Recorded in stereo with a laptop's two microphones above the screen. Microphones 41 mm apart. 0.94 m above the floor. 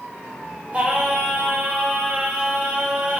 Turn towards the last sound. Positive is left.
turn(degrees=-30)  # may be behind; listen again after turning